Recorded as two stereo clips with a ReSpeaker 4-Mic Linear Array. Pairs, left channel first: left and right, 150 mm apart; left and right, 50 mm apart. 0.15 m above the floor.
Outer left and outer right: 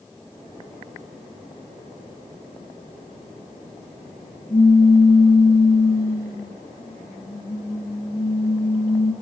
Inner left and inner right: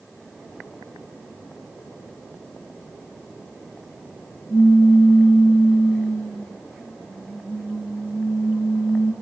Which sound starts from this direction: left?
A pop, at 4.5 s.